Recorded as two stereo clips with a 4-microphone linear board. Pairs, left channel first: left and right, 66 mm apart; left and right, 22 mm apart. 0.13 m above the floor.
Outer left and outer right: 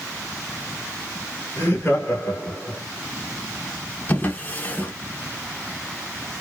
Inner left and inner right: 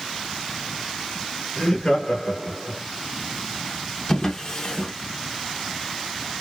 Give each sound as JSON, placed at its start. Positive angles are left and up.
{"t": 1.6, "sound": "laughter", "side_deg": 35, "distance_m": 1.2}
{"t": 4.1, "sound": "a drawer", "side_deg": 25, "distance_m": 0.8}